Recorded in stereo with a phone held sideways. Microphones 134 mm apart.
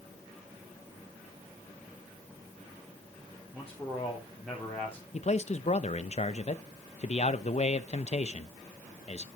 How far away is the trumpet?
I don't hear a trumpet.